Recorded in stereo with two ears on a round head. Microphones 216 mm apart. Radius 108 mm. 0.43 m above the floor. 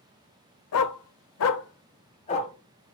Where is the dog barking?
70° left (ahead or behind), 0.5 m; by 2.5 s 25° left (ahead or behind), 0.9 m.